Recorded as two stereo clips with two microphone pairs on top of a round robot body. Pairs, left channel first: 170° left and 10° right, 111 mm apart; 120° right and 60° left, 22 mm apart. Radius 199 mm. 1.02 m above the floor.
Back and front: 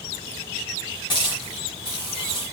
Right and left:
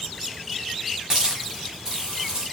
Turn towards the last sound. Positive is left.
turn(degrees=120)